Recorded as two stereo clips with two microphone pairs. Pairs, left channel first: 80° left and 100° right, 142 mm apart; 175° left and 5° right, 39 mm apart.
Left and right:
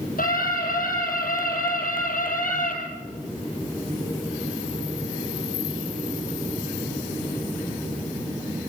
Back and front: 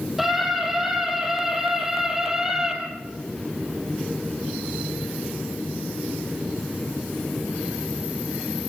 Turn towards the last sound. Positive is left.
turn(degrees=75)